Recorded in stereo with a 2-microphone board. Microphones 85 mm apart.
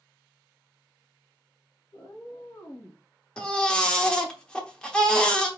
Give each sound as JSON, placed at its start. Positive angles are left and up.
{"t": 1.9, "sound": "a cat meowing", "side_deg": 50, "distance_m": 1.8}
{"t": 3.4, "sound": "a baby crying", "side_deg": 10, "distance_m": 0.8}